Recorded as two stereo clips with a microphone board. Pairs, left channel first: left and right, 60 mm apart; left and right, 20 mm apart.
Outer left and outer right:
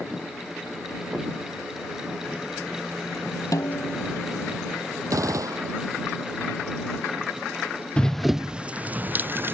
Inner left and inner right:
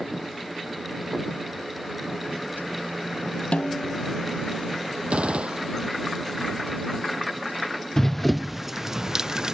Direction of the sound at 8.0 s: 20° left (ahead or behind).